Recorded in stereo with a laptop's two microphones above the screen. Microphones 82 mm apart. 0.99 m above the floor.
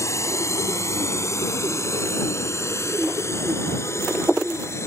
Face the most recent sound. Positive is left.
turn(degrees=35)  # may be behind; listen again after turning